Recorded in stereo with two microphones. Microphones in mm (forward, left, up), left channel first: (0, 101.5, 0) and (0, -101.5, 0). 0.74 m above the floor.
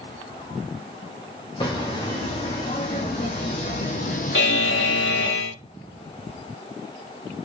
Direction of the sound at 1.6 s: 20° left (ahead or behind).